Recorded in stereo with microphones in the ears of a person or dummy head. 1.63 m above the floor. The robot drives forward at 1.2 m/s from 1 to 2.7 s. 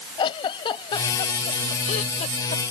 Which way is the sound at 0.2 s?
30° left (ahead or behind).